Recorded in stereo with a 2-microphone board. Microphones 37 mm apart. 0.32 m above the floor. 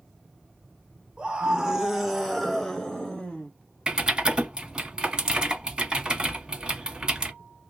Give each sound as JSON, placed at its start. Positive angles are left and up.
{"t": 1.2, "sound": "a scream", "side_deg": -25, "distance_m": 1.6}
{"t": 3.9, "sound": "typing on a keyboard", "side_deg": -25, "distance_m": 1.1}